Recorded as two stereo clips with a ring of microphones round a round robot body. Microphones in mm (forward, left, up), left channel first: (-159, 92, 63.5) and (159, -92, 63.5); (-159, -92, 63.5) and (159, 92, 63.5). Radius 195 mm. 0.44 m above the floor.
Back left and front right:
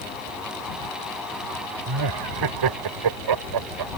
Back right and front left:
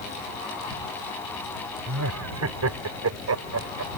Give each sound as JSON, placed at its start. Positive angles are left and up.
{"t": 1.9, "sound": "laughter", "azimuth_deg": -15}